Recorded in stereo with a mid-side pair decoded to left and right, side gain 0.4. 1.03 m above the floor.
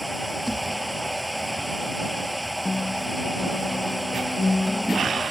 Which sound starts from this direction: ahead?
A machine running, at 0.0 s.